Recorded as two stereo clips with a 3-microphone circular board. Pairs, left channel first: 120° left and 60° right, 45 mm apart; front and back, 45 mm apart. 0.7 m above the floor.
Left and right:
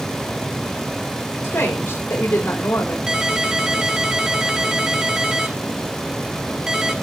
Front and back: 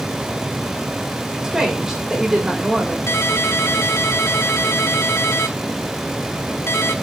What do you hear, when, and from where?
1.4 s a woman speaking: 105° left, 3 m
3.1 s a ringtone: 15° left, 1.4 m